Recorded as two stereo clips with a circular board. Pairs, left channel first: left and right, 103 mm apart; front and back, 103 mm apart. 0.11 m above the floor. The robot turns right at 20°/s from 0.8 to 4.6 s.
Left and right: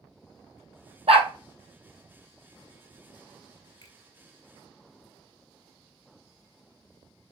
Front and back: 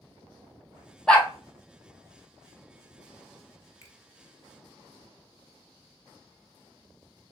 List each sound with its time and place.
1.1 s a dog barking: 80° right, 0.8 m; by 1.3 s 75° right, 0.8 m
3.8 s a finger snap: 50° left, 1.3 m; by 4.0 s 55° left, 1.3 m